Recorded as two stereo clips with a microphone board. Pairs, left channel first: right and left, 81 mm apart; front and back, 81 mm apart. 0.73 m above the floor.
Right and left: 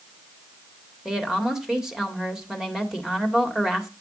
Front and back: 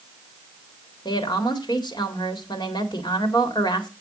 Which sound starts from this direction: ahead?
A woman speaking, at 1.1 s.